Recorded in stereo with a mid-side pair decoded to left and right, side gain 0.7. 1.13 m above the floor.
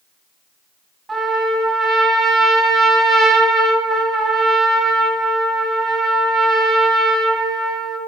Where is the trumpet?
20° right, 2.5 m.